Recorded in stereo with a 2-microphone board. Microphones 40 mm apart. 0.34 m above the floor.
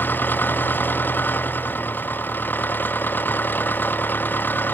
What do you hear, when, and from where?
0.0 s an engine running: 55° left (ahead or behind)